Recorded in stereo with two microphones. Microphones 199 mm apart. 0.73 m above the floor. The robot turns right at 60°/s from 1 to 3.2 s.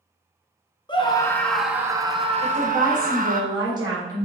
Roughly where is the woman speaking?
Right.